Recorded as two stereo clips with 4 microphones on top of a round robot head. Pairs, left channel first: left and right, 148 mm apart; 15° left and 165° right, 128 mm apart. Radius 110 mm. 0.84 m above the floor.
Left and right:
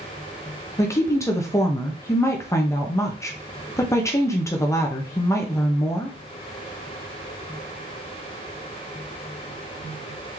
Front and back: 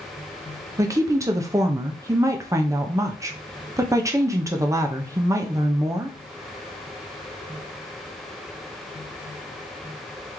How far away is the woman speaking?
About 0.7 m.